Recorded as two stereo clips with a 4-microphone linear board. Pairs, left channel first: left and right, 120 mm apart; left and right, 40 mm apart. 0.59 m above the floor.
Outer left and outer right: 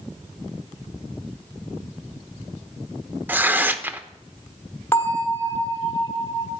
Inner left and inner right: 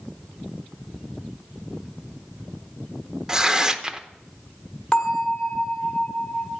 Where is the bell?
20° left (ahead or behind), 1.7 m.